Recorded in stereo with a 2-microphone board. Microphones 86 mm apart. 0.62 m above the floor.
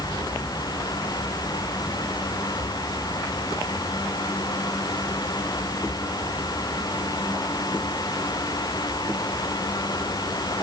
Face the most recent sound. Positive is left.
No sound to turn to.